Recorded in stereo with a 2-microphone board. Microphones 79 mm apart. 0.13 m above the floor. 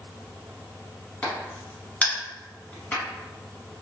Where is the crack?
20° left (ahead or behind), 1.3 m.